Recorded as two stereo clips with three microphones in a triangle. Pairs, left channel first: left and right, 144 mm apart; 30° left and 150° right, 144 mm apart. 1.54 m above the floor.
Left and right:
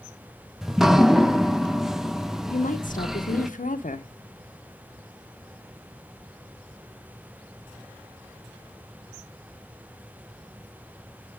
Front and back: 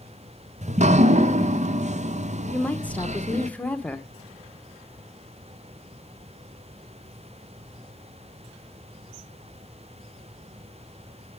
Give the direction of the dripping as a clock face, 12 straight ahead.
6 o'clock.